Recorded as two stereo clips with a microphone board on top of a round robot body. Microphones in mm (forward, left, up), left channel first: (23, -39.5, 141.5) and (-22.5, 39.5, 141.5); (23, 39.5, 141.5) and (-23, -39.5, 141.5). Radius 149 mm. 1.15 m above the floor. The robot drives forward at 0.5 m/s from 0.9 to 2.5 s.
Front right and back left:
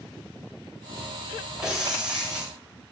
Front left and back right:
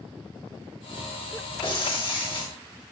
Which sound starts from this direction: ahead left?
Breaking glass, at 1.6 s.